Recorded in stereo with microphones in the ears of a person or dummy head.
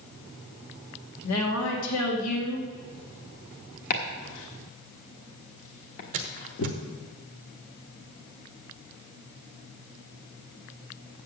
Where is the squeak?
40° right (ahead or behind), 0.8 m.